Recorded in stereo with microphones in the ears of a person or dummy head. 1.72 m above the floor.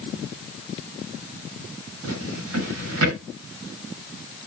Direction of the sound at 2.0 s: 75° right (ahead or behind).